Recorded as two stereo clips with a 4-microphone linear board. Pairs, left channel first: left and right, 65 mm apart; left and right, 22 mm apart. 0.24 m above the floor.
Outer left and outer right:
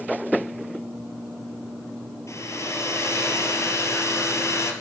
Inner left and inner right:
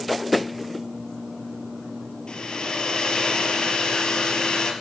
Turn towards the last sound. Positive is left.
turn(degrees=50)  # may be behind; listen again after turning